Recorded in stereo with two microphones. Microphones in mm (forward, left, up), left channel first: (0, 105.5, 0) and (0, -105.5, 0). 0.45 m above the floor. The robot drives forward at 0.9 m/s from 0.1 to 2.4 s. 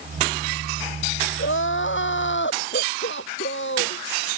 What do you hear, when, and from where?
1.4 s crying: 70° left (ahead or behind); by 4.0 s 65° left (ahead or behind)